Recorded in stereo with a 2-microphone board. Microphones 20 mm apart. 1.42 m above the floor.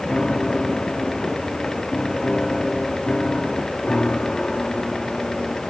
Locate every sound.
0.1 s a piano: 50° left (ahead or behind)